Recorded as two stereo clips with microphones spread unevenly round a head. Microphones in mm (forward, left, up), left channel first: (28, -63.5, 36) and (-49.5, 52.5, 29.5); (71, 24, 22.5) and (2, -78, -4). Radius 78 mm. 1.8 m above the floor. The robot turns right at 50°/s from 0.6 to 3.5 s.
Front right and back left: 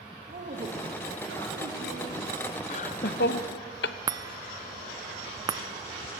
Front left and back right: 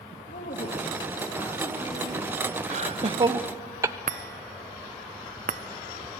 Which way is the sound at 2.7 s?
95° right.